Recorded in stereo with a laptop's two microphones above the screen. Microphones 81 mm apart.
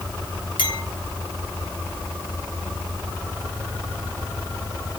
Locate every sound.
0.6 s a clink: 65° left (ahead or behind), 4 m